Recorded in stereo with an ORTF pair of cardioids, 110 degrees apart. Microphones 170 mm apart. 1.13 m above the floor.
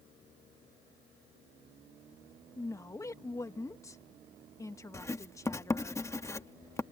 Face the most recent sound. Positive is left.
turn(degrees=15)